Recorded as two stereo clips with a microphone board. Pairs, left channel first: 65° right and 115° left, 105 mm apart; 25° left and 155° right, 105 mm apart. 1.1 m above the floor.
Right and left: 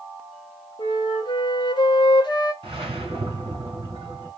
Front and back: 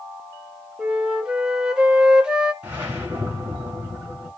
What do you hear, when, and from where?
0.8 s a flute: 80° right, 0.7 m
2.6 s a whoosh: 135° left, 2.0 m